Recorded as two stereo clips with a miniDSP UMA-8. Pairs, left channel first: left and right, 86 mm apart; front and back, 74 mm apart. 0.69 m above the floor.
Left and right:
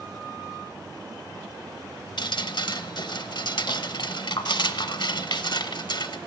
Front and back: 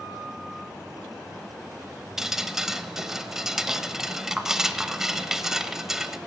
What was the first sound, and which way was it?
Dripping, 100° left.